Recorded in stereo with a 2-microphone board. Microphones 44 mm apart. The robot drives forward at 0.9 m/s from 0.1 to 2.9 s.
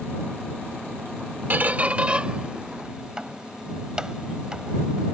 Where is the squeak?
45° right (ahead or behind); by 5.1 s 20° right (ahead or behind).